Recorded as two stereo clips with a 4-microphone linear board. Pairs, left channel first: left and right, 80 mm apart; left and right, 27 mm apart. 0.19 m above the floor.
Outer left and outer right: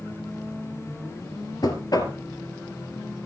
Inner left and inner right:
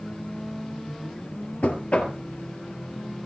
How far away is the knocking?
About 2.5 m.